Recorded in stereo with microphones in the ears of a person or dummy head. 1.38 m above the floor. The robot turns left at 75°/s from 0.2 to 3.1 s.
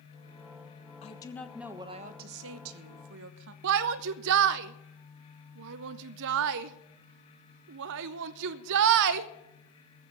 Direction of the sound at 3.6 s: 60° right (ahead or behind).